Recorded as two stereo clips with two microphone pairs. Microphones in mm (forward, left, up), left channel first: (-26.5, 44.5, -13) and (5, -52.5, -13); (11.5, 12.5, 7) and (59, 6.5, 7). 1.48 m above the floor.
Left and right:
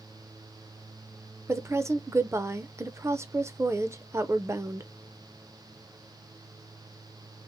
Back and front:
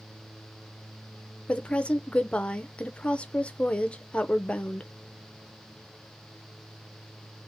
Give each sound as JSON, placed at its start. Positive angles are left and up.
{"t": 1.5, "sound": "a woman speaking", "azimuth_deg": -125, "distance_m": 0.5}